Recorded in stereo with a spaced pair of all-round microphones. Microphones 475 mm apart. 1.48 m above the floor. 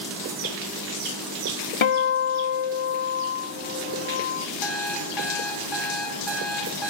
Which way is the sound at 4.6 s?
60° left (ahead or behind).